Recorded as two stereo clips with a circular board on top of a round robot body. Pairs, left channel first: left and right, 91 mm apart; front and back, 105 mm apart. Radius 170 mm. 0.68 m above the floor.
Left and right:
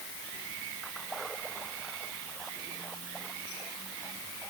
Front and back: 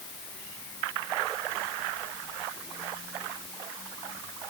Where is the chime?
No chime in this recording.